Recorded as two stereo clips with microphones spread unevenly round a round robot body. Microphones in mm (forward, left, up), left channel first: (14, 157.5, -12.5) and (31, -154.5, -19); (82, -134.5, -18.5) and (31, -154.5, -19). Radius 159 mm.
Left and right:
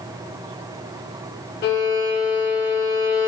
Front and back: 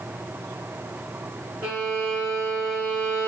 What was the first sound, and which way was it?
A violin, 150° left.